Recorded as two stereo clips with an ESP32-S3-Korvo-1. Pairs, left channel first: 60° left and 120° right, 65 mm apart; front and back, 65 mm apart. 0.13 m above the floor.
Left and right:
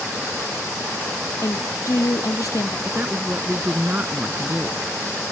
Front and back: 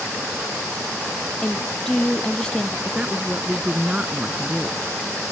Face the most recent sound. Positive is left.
turn(degrees=-130)